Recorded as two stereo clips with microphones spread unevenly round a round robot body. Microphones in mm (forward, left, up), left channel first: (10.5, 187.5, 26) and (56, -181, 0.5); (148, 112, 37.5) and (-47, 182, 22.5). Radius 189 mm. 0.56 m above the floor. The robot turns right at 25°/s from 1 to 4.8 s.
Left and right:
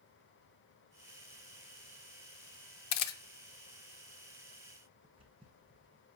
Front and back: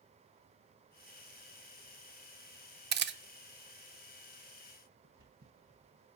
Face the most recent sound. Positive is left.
turn(degrees=-160)